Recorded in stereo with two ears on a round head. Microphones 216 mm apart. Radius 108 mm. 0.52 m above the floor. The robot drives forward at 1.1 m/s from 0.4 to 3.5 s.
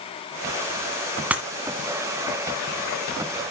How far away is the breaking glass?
About 1.3 m.